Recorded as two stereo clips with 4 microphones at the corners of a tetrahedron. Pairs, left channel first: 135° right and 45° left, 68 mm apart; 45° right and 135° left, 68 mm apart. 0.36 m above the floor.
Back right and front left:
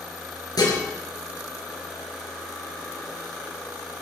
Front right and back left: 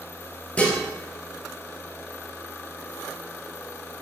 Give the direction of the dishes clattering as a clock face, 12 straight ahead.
4 o'clock.